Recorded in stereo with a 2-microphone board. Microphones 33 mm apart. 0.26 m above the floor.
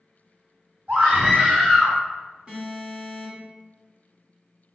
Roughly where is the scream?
Right.